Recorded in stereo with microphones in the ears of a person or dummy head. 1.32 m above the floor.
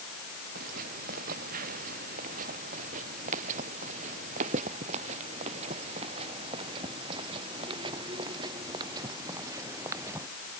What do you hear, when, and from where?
0.6 s footsteps: 45° right (ahead or behind); by 10.3 s 10° right (ahead or behind)